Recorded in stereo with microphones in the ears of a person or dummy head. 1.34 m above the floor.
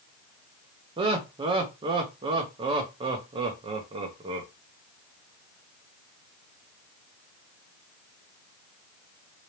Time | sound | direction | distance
1.0 | laughter | 25° right (ahead or behind) | 0.8 m